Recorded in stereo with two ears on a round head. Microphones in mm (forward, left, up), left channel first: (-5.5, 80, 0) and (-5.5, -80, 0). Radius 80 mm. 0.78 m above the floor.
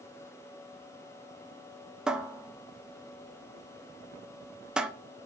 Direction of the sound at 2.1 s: 5° right (ahead or behind).